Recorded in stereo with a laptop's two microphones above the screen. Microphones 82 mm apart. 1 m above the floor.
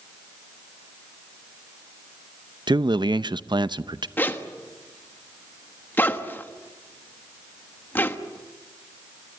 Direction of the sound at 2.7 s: 65° right (ahead or behind).